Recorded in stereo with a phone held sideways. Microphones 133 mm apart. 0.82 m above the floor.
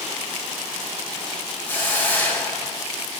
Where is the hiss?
15° left (ahead or behind), 4.5 m.